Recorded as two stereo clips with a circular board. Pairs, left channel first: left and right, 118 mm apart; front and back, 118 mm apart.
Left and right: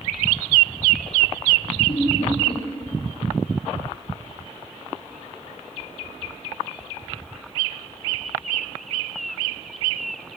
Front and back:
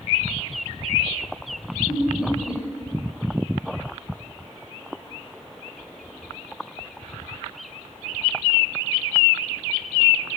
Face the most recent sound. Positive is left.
turn(degrees=55)